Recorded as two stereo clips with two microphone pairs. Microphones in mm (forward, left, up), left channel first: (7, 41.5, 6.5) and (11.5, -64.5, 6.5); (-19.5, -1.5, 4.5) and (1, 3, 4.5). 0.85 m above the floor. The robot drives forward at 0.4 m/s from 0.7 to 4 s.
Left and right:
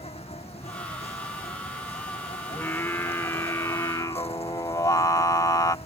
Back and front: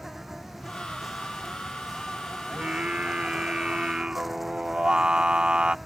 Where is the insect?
90° left; by 5.9 s 100° left.